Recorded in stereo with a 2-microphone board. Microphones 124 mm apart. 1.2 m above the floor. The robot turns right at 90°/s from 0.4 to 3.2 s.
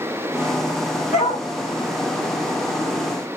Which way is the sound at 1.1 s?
70° left (ahead or behind).